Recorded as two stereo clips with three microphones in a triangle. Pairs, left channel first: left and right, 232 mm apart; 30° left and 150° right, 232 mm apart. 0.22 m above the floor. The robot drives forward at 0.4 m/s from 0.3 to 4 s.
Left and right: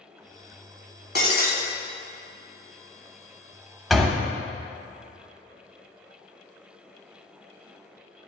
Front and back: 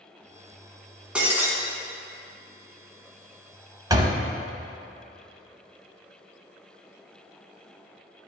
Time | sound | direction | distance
1.1 | breaking glass | 125° left | 1.2 m
3.9 | a door slam | straight behind | 0.6 m